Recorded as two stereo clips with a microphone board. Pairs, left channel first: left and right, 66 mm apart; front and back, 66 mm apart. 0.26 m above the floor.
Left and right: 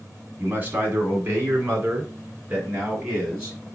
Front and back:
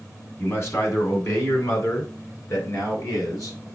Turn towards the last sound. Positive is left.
turn(degrees=-30)